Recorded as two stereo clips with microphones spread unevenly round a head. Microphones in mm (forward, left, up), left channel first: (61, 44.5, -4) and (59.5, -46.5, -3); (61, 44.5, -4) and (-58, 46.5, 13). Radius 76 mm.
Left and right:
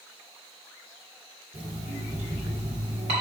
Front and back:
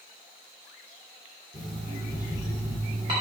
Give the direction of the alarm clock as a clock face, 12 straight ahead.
4 o'clock.